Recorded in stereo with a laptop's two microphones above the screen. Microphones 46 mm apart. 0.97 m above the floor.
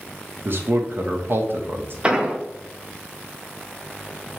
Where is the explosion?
20° right (ahead or behind), 0.6 m.